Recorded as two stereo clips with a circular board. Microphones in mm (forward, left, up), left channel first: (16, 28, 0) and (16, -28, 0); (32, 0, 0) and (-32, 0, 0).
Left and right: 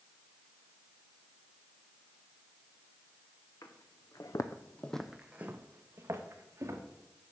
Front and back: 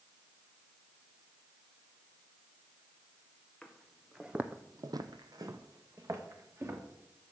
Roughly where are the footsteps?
Left.